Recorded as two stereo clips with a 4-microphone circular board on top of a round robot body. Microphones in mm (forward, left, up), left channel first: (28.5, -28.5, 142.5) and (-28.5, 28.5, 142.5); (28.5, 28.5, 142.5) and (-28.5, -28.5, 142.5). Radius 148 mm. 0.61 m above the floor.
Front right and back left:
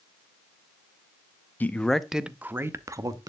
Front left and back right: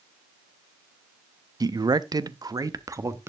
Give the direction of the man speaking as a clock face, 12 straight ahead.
4 o'clock.